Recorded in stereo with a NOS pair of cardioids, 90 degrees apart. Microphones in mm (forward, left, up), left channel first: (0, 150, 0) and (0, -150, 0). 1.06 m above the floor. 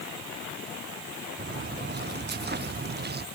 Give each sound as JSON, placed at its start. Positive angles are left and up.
{"t": 1.4, "sound": "footsteps", "azimuth_deg": -35}